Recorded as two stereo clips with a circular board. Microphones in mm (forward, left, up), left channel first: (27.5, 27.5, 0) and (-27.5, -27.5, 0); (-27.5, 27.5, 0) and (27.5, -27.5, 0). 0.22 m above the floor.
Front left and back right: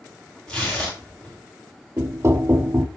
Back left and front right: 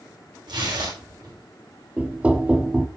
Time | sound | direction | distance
0.5 | tearing paper | 35° right | 9 m
2.0 | knocking | 105° right | 0.9 m